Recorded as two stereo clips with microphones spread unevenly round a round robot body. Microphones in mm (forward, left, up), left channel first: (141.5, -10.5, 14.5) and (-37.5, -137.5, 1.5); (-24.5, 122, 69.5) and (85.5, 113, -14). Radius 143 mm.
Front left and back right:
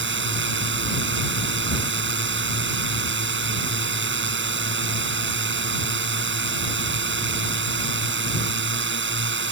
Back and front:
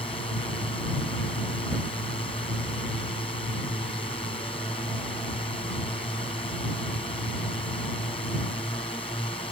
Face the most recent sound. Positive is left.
turn(degrees=-110)